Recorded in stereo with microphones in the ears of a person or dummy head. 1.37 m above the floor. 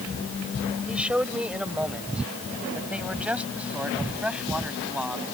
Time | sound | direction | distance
0.9 | a man speaking | 5° right (ahead or behind) | ?